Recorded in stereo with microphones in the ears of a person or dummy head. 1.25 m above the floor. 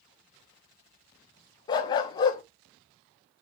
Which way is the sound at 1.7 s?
20° left (ahead or behind).